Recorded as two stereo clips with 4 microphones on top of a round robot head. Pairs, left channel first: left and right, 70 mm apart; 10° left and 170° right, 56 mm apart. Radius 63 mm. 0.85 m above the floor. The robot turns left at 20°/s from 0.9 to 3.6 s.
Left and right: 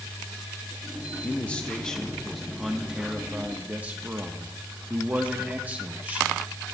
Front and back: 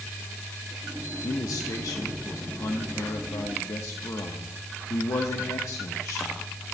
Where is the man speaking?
25° left, 1.1 m; by 6.4 s 20° right, 1.1 m.